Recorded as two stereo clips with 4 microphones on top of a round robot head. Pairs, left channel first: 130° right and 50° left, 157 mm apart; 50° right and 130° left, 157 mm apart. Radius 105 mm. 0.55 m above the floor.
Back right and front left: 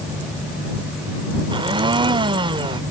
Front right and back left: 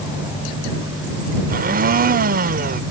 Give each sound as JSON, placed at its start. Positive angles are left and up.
{"t": 1.5, "sound": "a blender", "azimuth_deg": 105}